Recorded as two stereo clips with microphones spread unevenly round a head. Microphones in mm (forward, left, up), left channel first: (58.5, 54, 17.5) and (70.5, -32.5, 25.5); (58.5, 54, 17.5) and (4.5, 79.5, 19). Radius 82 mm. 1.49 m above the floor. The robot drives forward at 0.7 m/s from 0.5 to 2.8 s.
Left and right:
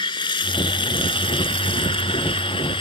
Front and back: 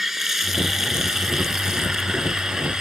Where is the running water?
70° left; by 2.8 s 75° left.